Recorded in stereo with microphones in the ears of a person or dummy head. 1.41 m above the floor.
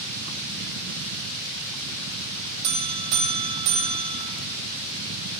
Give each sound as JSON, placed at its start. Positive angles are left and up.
{"t": 2.6, "sound": "a buzzer", "side_deg": -65, "distance_m": 2.5}